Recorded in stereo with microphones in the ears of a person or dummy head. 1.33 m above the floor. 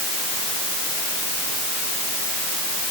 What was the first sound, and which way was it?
Only background noise.